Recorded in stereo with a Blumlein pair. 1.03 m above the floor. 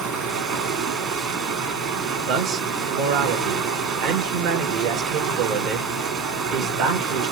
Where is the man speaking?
40° right, 0.9 m.